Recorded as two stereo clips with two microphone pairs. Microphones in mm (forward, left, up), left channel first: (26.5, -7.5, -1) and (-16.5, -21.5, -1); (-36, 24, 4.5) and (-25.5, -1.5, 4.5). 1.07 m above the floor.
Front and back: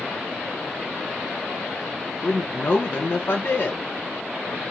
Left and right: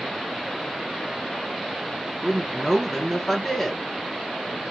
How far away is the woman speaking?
About 0.6 m.